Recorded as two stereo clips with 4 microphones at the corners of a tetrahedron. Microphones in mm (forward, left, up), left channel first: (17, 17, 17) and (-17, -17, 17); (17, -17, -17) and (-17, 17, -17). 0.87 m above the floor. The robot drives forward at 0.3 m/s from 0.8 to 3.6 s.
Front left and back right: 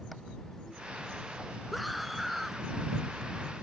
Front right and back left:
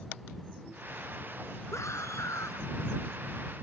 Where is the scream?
45° right.